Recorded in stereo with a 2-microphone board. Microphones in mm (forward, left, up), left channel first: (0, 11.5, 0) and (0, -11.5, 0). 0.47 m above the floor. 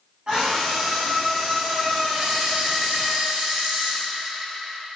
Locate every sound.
0.3 s a scream: 35° right (ahead or behind), 3.5 m; by 3.1 s 20° right (ahead or behind), 6.5 m
2.1 s a camera shutter: 50° right (ahead or behind), 4 m